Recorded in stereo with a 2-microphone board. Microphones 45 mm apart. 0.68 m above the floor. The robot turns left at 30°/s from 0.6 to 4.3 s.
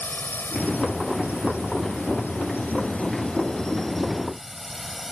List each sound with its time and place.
0.0 s a drone: 45° left (ahead or behind); by 5.1 s 10° right (ahead or behind)